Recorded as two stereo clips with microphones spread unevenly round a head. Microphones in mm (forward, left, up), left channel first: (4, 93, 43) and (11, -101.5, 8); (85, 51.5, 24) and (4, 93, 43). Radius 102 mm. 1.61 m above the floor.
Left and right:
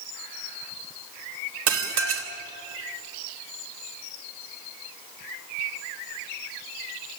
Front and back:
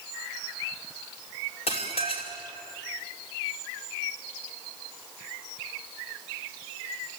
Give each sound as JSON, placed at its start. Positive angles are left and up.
{"t": 1.7, "sound": "dishes clattering", "azimuth_deg": -75, "distance_m": 2.5}